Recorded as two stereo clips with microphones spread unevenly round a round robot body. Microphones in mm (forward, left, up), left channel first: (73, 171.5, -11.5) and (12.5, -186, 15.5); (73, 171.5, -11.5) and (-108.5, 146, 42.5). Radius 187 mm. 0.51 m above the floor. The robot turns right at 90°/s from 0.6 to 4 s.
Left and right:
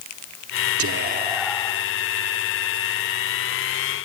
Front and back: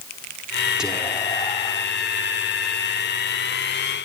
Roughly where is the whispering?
Ahead right.